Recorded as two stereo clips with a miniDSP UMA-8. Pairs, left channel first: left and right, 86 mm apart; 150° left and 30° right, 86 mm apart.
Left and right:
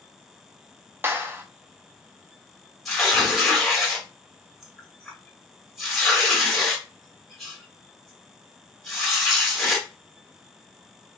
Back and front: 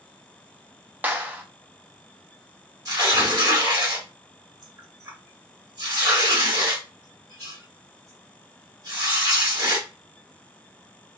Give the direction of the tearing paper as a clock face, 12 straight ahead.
12 o'clock.